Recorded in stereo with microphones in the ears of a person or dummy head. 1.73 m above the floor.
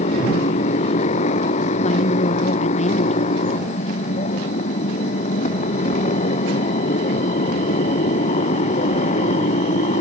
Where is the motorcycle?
35° left (ahead or behind).